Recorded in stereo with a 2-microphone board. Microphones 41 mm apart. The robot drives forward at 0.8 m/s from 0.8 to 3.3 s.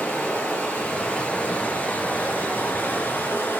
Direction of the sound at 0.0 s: 40° left (ahead or behind).